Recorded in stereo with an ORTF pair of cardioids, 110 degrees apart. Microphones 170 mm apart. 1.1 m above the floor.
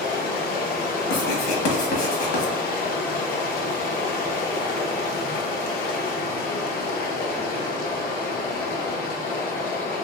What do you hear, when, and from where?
0.0 s running water: 60° left, 0.8 m
1.1 s writing: 60° left, 1.2 m